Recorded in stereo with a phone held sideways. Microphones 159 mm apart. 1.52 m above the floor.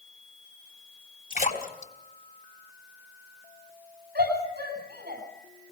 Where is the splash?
60° left (ahead or behind), 3.5 m.